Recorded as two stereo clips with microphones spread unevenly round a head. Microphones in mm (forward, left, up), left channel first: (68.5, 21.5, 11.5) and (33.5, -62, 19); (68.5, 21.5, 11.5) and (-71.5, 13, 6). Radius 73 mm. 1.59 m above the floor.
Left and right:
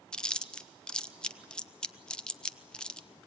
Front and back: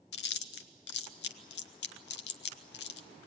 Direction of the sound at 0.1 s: 15° right.